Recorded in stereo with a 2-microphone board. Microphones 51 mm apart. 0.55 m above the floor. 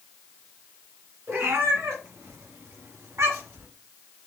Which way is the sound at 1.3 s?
60° right (ahead or behind).